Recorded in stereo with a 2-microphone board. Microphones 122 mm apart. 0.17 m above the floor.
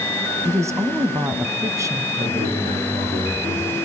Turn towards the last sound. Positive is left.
turn(degrees=-75)  # may be behind; listen again after turning